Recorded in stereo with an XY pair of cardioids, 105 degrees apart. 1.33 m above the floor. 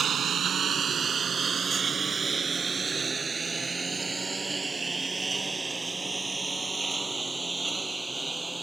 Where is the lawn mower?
50° right; by 8.6 s 10° right.